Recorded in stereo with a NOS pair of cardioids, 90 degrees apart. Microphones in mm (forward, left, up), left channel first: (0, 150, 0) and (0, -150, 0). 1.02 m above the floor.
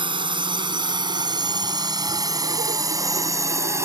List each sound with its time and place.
0.0 s a drone: 15° right; by 3.9 s 10° right